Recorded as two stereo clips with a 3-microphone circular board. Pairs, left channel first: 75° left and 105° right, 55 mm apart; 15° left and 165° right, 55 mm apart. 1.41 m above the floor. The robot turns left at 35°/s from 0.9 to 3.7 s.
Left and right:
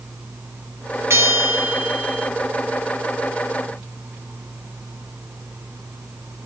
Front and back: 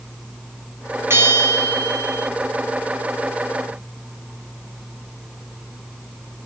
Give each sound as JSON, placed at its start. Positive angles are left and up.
{"t": 1.1, "sound": "a bell", "azimuth_deg": -130, "distance_m": 2.5}